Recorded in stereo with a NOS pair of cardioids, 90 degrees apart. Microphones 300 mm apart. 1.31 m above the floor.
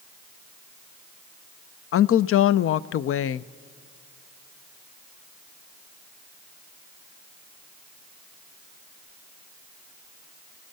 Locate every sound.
1.9 s a woman speaking: 50° left, 0.5 m